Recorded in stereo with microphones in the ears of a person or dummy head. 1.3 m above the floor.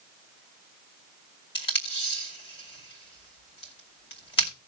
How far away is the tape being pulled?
About 2.5 m.